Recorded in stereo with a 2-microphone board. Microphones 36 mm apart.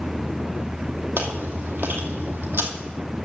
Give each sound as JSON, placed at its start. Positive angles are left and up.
{"t": 1.2, "sound": "chewing", "side_deg": -75, "distance_m": 1.9}